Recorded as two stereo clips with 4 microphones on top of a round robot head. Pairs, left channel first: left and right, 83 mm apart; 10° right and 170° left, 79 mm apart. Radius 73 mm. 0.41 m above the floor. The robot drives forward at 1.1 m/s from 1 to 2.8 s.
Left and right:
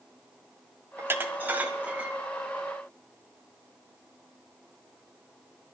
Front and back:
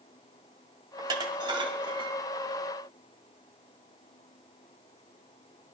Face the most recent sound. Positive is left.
turn(degrees=-170)